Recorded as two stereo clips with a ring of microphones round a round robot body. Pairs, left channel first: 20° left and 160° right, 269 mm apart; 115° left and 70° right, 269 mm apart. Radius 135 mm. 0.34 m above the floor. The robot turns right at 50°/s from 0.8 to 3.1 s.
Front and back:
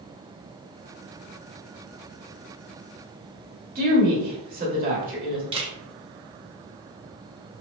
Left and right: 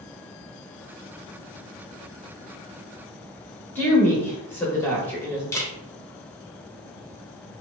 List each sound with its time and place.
3.8 s a woman speaking: 175° right, 1.0 m
5.5 s a camera shutter: 175° left, 0.8 m